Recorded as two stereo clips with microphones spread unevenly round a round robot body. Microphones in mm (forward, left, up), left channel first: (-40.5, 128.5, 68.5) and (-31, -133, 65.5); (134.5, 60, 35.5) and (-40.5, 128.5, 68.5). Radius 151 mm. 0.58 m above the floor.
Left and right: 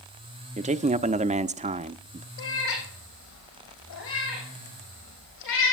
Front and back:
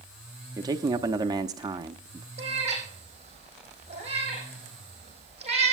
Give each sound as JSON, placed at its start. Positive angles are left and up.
{"t": 0.6, "sound": "a man speaking", "azimuth_deg": -130, "distance_m": 0.7}
{"t": 2.4, "sound": "a cat meowing", "azimuth_deg": 105, "distance_m": 5.5}